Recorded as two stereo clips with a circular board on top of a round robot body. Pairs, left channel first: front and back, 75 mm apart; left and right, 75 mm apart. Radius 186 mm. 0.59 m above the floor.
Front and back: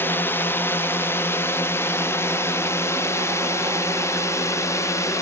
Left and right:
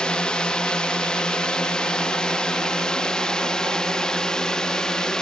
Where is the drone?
25° left; by 5.2 s 15° left.